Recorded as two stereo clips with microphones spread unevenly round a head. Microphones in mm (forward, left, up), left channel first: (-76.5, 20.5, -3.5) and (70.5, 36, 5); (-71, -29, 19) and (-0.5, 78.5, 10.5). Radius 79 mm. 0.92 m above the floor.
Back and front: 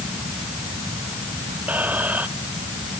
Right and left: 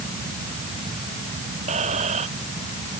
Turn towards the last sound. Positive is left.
turn(degrees=85)